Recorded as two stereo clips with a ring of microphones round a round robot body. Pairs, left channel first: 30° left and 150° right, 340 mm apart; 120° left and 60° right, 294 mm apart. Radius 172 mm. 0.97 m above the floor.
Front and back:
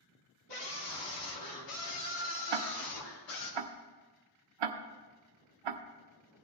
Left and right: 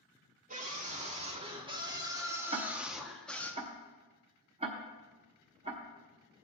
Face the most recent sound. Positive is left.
turn(degrees=-135)